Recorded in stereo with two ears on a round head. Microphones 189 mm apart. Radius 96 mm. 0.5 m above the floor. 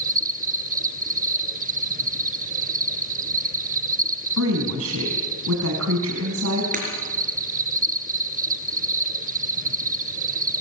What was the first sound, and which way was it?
An insect, 35° right (ahead or behind).